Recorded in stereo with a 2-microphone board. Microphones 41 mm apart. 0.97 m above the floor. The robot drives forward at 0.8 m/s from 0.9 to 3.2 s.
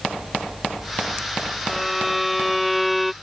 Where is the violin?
5° right (ahead or behind).